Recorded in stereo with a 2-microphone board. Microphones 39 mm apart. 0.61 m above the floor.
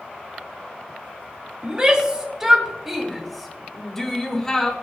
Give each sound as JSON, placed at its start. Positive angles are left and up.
{"t": 1.6, "sound": "a shout", "side_deg": -25, "distance_m": 2.5}